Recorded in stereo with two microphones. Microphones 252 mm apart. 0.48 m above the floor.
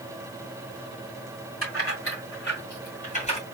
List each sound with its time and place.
1.6 s keys jangling: 55° left (ahead or behind), 2.5 m; by 3.4 s 25° left (ahead or behind), 2 m